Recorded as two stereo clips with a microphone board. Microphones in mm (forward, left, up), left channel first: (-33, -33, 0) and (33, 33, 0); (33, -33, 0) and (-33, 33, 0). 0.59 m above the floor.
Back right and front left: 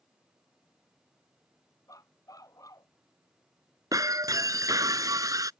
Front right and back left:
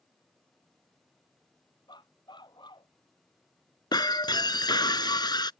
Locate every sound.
1.9 s a dog barking: 80° right
3.9 s breaking glass: 5° right